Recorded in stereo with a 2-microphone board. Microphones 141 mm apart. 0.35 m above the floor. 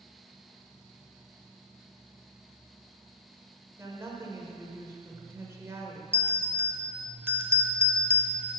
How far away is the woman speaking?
About 0.8 m.